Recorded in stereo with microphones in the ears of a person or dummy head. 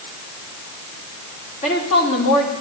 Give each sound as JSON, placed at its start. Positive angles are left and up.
{"t": 1.6, "sound": "a woman speaking", "side_deg": 40, "distance_m": 3.5}